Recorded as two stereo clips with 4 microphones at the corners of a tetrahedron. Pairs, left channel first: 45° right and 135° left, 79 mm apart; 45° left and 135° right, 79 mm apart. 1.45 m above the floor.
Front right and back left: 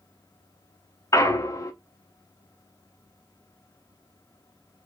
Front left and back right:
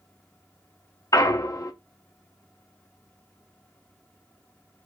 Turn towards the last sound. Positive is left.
turn(degrees=0)